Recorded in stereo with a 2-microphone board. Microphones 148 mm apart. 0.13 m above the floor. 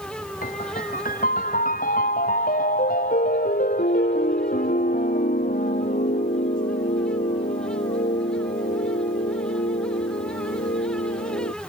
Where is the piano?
70° left (ahead or behind).